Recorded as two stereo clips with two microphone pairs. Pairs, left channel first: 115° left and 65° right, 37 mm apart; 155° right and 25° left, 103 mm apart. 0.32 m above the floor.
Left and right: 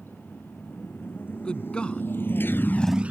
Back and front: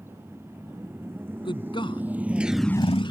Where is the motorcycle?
90° left; by 3.1 s 115° right.